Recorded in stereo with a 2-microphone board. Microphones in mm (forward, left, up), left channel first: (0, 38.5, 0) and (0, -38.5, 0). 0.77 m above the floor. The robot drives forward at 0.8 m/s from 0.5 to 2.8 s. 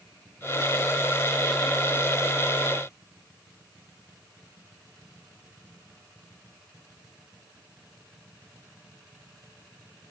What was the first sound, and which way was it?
Only background noise.